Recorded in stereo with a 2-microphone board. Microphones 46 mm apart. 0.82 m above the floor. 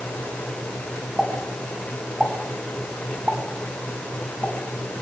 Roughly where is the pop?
Centre.